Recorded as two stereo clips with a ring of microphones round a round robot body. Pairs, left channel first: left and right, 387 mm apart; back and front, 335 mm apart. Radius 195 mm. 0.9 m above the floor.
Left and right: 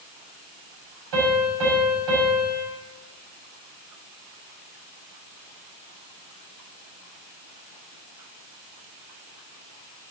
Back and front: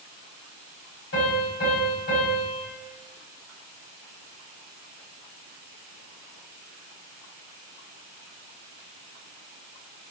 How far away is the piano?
About 7 m.